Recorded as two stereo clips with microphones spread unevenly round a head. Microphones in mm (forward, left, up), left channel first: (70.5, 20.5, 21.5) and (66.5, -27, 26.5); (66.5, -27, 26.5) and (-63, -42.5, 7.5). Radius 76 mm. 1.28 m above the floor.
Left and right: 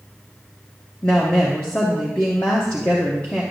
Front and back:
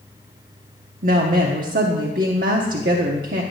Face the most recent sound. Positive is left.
turn(degrees=160)